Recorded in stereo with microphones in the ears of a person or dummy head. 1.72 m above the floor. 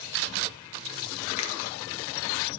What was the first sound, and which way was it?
A finger snap, 35° left (ahead or behind).